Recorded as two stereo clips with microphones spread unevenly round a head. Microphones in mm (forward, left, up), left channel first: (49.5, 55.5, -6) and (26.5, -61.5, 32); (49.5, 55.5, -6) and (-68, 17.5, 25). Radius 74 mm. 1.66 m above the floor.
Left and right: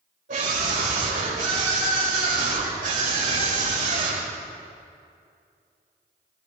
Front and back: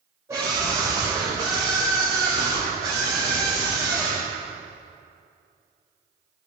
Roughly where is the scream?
Right.